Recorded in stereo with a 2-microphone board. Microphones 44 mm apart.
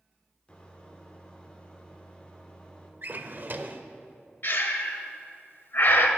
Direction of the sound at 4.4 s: 55° left (ahead or behind).